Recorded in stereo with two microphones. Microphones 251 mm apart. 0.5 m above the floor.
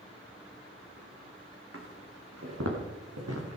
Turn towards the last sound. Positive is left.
turn(degrees=-75)  # may be behind; listen again after turning